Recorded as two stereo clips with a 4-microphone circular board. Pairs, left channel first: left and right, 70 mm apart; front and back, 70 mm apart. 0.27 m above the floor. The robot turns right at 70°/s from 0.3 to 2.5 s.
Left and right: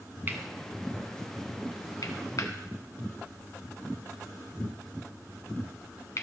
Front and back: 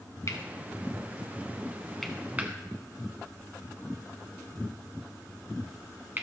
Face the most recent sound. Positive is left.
turn(degrees=120)